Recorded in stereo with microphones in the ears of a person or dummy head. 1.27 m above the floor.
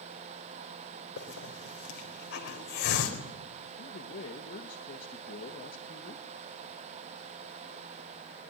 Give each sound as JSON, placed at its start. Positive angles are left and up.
{"t": 1.2, "sound": "a hiss", "side_deg": 50, "distance_m": 4.0}
{"t": 3.8, "sound": "a man speaking", "side_deg": 35, "distance_m": 1.7}